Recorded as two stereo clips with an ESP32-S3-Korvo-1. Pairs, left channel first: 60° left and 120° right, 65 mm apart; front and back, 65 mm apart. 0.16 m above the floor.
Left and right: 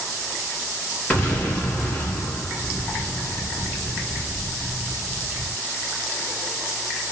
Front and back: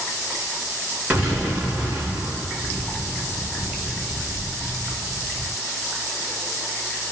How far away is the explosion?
About 2.5 m.